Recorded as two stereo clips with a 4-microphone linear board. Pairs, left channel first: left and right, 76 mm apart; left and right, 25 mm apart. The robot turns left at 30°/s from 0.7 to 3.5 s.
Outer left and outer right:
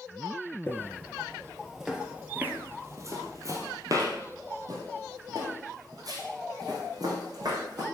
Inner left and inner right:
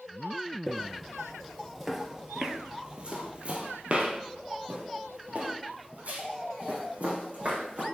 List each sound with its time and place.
0.7 s footsteps: 25° left (ahead or behind), 1.5 m; by 7.8 s 60° right (ahead or behind), 4 m